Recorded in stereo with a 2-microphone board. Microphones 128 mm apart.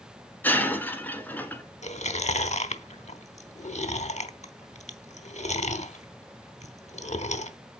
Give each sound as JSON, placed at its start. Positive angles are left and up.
{"t": 0.4, "sound": "breaking glass", "side_deg": 15, "distance_m": 1.2}
{"t": 1.8, "sound": "chewing", "side_deg": 65, "distance_m": 0.8}